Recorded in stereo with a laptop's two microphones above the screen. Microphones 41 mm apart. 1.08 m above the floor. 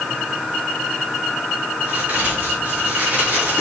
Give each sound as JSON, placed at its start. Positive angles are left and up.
{"t": 1.8, "sound": "a crack", "side_deg": -35, "distance_m": 4.0}